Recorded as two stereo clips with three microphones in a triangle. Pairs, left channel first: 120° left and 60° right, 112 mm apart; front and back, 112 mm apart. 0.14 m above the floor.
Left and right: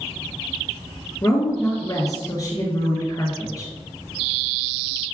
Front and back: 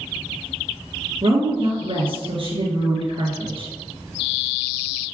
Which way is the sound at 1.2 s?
170° left.